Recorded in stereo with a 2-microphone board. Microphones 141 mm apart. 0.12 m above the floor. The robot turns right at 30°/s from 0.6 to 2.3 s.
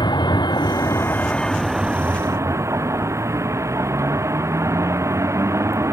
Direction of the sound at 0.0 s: 150° left.